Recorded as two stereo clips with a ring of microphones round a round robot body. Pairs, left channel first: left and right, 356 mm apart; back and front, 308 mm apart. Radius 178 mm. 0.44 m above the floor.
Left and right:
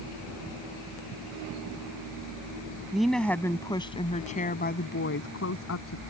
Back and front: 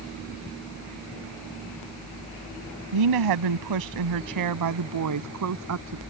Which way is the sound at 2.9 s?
Straight ahead.